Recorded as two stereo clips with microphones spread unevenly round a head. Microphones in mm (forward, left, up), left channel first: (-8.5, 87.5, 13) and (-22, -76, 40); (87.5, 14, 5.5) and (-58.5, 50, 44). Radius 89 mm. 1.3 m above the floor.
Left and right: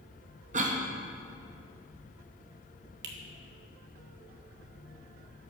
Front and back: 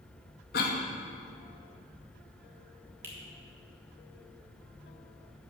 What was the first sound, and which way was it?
A cough, 45° right.